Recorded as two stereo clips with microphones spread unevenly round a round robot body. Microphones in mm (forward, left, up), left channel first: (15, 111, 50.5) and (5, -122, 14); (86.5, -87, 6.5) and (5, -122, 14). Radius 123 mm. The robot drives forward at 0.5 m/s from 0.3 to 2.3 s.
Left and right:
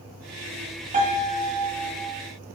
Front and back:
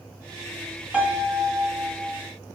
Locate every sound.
0.9 s a piano: 80° right, 1.2 m; by 2.2 s 125° right, 1.3 m